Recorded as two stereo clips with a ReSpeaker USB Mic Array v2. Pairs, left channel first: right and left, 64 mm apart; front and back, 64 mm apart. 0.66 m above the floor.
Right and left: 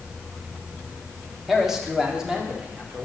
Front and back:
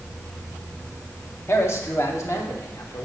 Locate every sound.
1.5 s a man speaking: 5° left, 1.5 m; by 3.0 s 20° left, 2 m